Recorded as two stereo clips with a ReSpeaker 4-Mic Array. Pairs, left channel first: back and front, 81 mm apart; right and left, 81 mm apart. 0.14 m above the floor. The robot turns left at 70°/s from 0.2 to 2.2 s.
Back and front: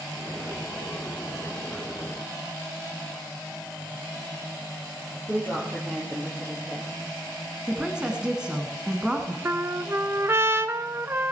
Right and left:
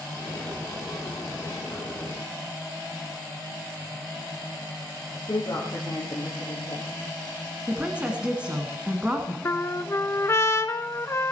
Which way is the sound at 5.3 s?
65° right.